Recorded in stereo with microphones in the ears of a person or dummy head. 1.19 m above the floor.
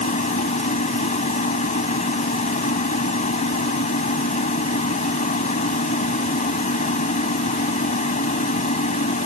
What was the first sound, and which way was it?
A machine running, 45° left (ahead or behind).